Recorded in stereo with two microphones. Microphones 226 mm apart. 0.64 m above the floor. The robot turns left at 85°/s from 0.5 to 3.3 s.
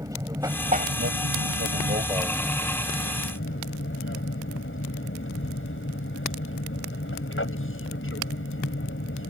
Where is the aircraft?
15° right; by 9.3 s 105° left.